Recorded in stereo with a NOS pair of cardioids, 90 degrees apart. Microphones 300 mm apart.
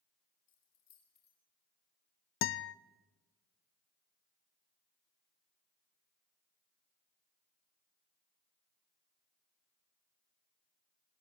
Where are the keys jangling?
60° left, 5.5 m.